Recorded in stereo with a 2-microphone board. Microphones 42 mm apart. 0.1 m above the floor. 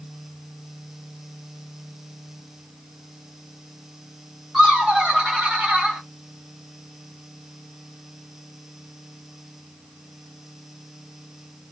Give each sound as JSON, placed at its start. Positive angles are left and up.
{"t": 4.5, "sound": "laughter", "side_deg": 5, "distance_m": 1.4}